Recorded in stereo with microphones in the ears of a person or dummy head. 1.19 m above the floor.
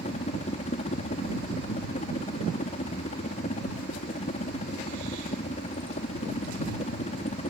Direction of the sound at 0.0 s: 35° left (ahead or behind).